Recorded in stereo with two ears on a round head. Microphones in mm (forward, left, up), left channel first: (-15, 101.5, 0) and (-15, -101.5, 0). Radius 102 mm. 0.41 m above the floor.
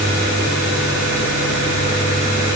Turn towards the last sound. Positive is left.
No sound to turn to.